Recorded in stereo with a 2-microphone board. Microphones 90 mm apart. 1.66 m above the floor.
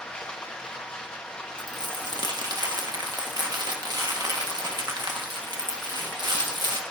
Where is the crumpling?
50° right (ahead or behind), 1.6 m.